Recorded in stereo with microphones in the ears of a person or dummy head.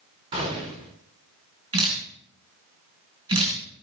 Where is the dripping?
20° right (ahead or behind), 3.5 m.